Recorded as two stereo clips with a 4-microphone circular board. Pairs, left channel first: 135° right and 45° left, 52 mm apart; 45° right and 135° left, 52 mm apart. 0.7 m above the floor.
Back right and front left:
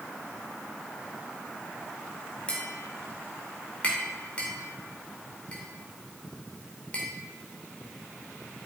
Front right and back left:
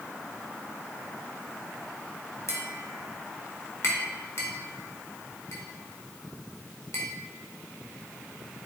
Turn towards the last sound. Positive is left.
turn(degrees=-70)